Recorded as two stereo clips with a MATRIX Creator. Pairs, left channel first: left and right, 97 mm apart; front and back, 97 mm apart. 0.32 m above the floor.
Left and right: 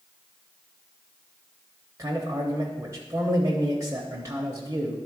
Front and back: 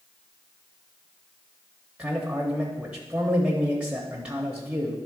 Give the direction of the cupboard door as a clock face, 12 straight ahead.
No cupboard door in this recording.